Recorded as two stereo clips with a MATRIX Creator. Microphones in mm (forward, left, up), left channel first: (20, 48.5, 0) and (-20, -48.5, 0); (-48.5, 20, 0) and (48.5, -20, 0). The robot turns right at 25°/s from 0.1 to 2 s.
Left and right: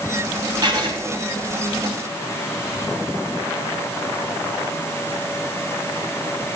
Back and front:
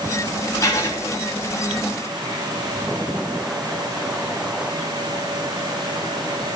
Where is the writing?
145° right, 4 m; by 1.0 s 140° right, 4 m.